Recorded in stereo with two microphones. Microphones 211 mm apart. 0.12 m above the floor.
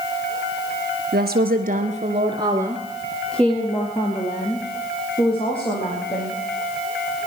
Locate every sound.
1.1 s a woman speaking: 50° right (ahead or behind), 1.7 m; by 6.4 s 30° left (ahead or behind), 4.5 m